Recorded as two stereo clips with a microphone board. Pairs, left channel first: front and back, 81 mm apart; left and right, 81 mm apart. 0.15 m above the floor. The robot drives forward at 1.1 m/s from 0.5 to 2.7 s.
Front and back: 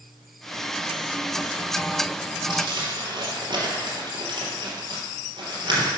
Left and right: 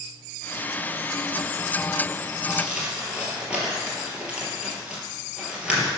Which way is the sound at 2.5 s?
165° right.